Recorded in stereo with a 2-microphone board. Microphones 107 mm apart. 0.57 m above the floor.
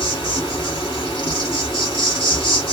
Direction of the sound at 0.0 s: 50° left (ahead or behind).